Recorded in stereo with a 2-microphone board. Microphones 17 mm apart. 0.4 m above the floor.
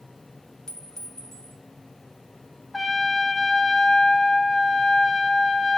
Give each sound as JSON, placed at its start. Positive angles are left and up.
{"t": 0.7, "sound": "a clink", "side_deg": 35, "distance_m": 1.9}
{"t": 2.7, "sound": "a trumpet", "side_deg": 15, "distance_m": 0.9}